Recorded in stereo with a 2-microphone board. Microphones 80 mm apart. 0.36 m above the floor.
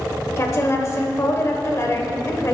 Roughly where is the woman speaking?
Left.